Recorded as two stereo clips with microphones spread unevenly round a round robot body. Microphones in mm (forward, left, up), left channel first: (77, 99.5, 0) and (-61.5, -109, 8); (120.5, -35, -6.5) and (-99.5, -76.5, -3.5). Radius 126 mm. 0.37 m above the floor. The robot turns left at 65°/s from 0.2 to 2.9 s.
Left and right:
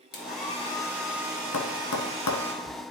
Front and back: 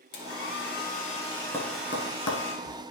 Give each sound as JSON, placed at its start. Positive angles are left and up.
{"t": 0.1, "sound": "a hair dryer", "azimuth_deg": 20, "distance_m": 2.0}
{"t": 1.5, "sound": "tapping", "azimuth_deg": 95, "distance_m": 1.3}